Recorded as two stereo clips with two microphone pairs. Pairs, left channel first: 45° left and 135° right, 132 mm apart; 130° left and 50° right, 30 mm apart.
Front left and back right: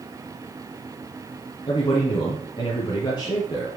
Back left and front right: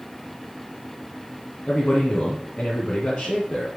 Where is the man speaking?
95° left, 2.0 m.